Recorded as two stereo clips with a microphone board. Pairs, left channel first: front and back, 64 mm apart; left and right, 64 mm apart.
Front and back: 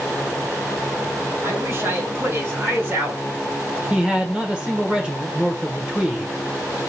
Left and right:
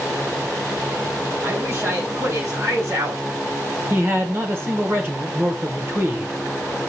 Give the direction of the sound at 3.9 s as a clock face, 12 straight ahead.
4 o'clock.